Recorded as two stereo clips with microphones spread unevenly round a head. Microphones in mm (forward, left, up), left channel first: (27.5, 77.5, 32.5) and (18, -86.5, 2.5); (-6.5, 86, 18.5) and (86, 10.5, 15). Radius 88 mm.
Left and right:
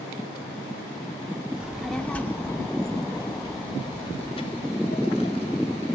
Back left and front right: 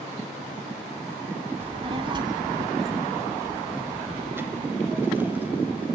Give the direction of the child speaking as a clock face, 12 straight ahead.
12 o'clock.